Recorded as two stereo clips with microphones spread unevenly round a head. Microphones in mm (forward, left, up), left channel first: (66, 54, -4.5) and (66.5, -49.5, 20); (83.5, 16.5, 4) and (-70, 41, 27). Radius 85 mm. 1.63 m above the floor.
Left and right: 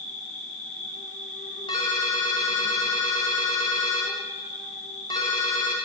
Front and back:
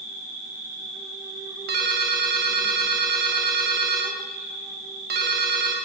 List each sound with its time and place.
0.0 s an insect: 100° left, 8.5 m
1.7 s a ringtone: 160° left, 2.5 m